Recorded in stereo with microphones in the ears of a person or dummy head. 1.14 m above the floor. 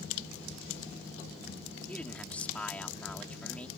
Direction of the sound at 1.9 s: Centre (ahead or behind).